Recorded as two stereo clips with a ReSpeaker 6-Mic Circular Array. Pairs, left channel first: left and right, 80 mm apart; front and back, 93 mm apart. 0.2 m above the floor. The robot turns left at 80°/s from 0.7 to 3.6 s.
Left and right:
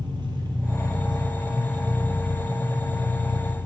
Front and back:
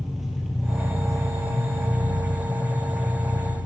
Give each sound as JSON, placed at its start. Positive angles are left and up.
{"t": 0.0, "sound": "an engine running", "azimuth_deg": -95, "distance_m": 2.0}